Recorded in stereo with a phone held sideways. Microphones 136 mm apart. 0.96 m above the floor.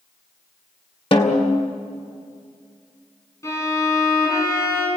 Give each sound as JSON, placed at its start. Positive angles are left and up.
{"t": 1.1, "sound": "a snare drum", "side_deg": 45, "distance_m": 2.0}
{"t": 3.4, "sound": "a violin", "side_deg": 25, "distance_m": 8.0}